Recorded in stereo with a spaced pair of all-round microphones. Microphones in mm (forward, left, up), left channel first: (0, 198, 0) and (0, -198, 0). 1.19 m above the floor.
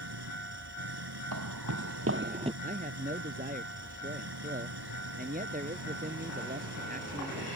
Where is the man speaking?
20° right (ahead or behind).